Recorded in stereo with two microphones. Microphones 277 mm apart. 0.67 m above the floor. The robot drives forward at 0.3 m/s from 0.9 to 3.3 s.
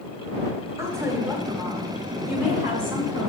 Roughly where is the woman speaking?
Centre.